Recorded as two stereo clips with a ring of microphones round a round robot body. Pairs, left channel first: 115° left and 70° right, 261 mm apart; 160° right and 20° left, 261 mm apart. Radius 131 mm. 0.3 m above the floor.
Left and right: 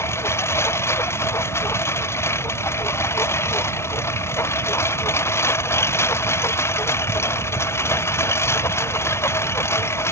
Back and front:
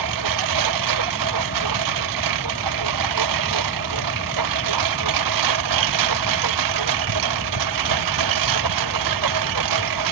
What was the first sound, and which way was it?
A lawn mower, 30° left.